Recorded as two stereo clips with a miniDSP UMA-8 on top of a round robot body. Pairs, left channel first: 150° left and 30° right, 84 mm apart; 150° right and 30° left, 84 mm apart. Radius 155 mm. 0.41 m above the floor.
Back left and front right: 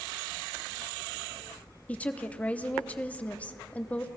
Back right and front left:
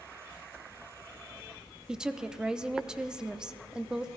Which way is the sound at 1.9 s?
100° left.